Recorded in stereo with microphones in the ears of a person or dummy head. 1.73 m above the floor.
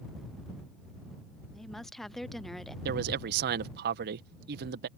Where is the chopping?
I don't hear chopping.